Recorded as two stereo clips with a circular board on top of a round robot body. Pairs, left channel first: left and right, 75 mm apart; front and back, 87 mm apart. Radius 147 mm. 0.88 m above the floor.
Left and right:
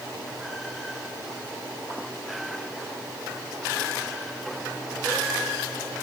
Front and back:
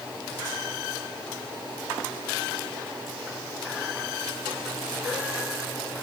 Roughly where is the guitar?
No guitar in this recording.